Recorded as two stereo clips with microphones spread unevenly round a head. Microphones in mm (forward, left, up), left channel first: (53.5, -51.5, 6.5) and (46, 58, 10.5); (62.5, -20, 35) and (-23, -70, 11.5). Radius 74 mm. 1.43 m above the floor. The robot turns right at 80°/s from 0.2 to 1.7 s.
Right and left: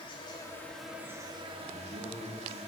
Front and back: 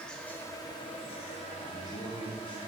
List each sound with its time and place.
0.0 s an insect: 45° right, 1.3 m; by 2.7 s 75° left, 1.3 m
1.6 s a man speaking: 70° left, 2.5 m; by 2.6 s 75° left, 2.5 m